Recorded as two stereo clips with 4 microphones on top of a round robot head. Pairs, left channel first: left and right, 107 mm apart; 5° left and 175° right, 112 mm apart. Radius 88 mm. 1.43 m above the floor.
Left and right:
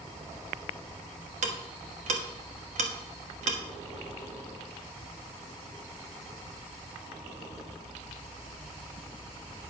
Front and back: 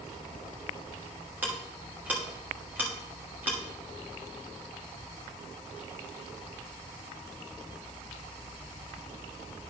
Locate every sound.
1.4 s ticking: 95° right, 1.2 m